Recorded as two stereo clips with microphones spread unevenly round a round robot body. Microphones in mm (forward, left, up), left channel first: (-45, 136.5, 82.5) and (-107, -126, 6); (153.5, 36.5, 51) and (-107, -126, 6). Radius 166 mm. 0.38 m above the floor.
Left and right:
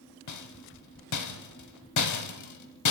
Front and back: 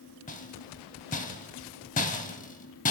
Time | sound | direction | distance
0.3 | a rattle | 100° left | 1.6 m